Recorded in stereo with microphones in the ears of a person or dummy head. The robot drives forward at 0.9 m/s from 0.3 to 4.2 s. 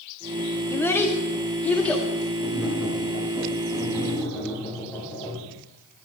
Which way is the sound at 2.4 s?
10° left (ahead or behind).